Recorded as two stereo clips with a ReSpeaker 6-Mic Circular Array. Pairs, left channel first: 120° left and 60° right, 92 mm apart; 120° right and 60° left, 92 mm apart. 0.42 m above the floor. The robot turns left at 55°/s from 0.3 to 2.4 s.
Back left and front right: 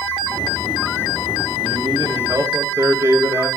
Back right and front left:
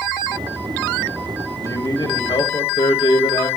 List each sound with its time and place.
1.6 s a man speaking: 70° right, 1.8 m; by 3.5 s 110° right, 1.8 m